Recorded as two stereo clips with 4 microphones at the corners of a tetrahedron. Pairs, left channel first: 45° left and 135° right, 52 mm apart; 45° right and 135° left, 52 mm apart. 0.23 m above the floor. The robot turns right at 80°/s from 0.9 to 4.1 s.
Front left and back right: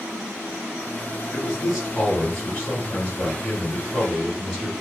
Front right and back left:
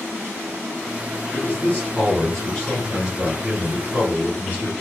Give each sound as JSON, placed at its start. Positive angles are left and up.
{"t": 1.3, "sound": "a man speaking", "azimuth_deg": -75, "distance_m": 1.7}